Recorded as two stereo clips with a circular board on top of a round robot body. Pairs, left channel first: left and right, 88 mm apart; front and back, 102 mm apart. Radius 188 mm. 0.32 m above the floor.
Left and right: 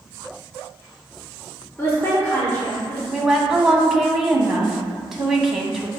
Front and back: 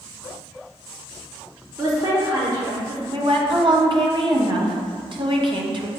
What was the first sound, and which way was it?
A woman speaking, 140° left.